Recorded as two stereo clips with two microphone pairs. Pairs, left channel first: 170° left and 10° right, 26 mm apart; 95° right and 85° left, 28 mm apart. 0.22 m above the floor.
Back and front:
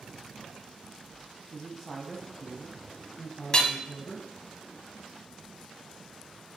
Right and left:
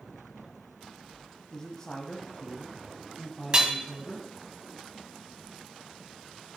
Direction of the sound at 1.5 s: 85° right.